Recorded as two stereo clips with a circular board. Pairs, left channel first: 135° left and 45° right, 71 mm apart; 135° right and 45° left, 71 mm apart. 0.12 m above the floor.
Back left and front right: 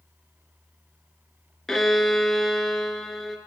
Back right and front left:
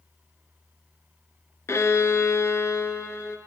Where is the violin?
145° right, 0.8 m.